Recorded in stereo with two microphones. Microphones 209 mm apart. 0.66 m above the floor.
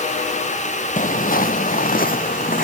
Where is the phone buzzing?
No phone buzzing in this recording.